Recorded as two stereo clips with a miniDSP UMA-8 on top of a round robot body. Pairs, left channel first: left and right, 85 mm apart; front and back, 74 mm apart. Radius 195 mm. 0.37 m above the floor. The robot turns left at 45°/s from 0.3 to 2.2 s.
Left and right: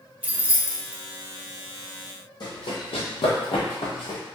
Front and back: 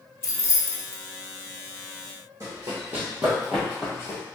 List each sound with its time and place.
0.2 s keys jangling: 25° right, 1.0 m; by 1.0 s 55° right, 1.0 m
2.4 s running footsteps: 125° left, 1.1 m; by 4.2 s 55° left, 0.9 m